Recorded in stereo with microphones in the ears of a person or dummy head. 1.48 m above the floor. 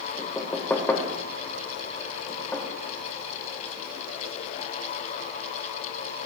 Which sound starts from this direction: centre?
Knocking, at 0.2 s.